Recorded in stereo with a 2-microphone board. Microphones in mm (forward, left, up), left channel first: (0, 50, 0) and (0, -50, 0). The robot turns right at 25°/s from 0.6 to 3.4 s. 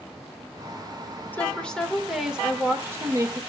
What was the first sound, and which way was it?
A woman speaking, 160° left.